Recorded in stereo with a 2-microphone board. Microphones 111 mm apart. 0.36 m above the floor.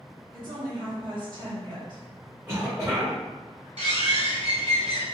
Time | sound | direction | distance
0.3 | a woman speaking | 50° right (ahead or behind) | 1.9 m
2.5 | a cough | 30° right (ahead or behind) | 1.2 m
3.8 | a bird | 85° right | 0.9 m